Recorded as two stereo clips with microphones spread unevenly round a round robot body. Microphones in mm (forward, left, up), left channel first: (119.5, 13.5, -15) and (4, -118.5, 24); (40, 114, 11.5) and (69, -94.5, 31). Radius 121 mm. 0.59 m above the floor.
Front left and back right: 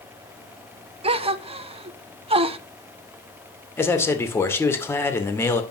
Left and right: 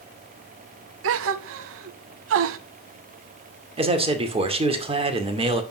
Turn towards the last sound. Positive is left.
turn(degrees=-20)